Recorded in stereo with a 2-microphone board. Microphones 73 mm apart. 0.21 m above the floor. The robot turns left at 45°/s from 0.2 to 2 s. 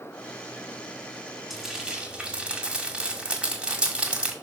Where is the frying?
5° right (ahead or behind), 1.7 m; by 4.3 s 15° right (ahead or behind), 1.7 m.